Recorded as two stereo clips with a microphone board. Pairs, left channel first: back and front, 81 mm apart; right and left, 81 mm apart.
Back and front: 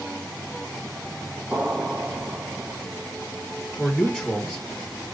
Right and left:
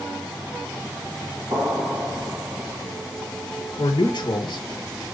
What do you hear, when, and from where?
1.5 s an explosion: 80° left, 1.8 m
3.8 s a man speaking: 105° right, 1.2 m